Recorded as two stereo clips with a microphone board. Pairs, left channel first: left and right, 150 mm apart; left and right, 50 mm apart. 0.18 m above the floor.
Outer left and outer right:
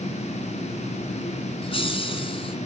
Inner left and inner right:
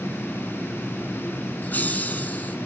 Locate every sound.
1.6 s laughter: 40° left (ahead or behind), 2 m